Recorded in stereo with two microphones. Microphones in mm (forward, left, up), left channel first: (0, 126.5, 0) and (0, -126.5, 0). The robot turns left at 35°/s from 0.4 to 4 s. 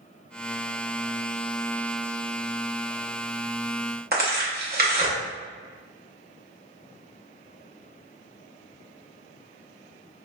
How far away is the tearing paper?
About 0.6 m.